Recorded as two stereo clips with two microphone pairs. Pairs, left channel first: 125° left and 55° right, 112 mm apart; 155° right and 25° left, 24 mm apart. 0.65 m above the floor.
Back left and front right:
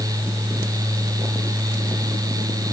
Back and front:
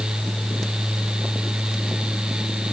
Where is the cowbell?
No cowbell in this recording.